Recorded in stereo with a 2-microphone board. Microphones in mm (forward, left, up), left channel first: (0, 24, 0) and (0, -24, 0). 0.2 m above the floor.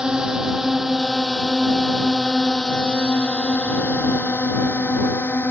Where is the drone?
15° right (ahead or behind); by 5.5 s 45° left (ahead or behind).